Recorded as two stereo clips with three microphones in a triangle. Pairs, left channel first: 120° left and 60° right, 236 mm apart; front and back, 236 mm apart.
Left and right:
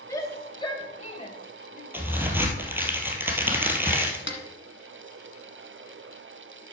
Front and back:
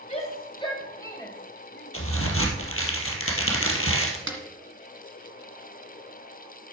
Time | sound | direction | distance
0.1 | a shout | 50° left | 2 m
1.9 | a crack | 20° left | 1.8 m
4.3 | a snare drum | 155° left | 1.5 m